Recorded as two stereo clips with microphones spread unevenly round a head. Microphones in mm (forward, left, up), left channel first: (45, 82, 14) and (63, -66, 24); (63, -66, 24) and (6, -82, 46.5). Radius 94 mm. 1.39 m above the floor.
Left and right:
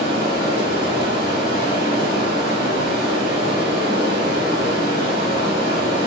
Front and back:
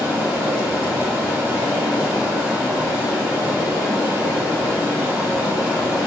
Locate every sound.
0.0 s running water: 160° left, 1.6 m